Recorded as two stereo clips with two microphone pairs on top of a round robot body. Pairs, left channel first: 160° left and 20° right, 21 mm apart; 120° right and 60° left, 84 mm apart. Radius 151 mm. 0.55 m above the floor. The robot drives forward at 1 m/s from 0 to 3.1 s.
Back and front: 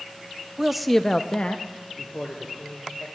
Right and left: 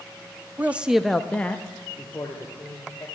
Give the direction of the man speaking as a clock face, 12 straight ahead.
11 o'clock.